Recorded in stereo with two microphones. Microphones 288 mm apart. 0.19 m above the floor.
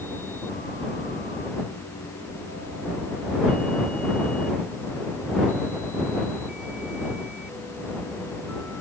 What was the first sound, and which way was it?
Only background noise.